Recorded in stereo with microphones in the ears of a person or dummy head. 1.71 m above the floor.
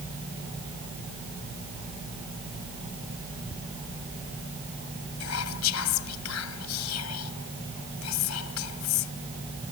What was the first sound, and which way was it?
A squeak, 20° left (ahead or behind).